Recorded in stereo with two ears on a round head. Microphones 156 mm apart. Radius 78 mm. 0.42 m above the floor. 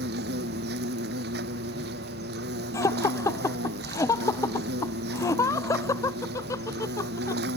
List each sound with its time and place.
0.0 s an insect: 65° right (ahead or behind)
2.7 s laughter: 20° left (ahead or behind)